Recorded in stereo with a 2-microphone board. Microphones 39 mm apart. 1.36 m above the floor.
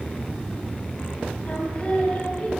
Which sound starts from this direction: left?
Singing, at 1.4 s.